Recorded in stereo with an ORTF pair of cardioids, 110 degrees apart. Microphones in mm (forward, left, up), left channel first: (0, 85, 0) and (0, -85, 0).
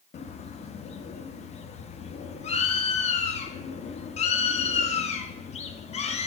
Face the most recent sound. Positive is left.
turn(degrees=40)